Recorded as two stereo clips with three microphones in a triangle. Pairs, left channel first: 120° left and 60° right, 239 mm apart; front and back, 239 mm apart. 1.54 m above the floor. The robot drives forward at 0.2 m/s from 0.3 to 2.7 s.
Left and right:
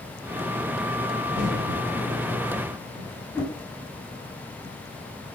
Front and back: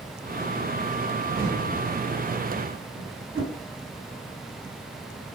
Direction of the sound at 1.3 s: 125° right.